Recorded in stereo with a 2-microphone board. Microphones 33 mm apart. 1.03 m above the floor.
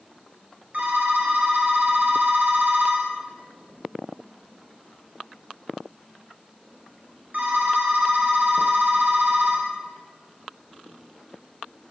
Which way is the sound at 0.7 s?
50° right (ahead or behind).